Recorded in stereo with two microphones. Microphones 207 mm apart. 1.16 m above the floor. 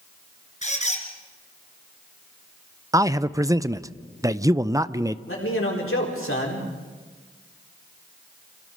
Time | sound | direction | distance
0.6 | a squeak | 35° left (ahead or behind) | 2.5 m
2.9 | a man speaking | 15° right (ahead or behind) | 0.5 m
5.3 | a man speaking | 80° left | 4 m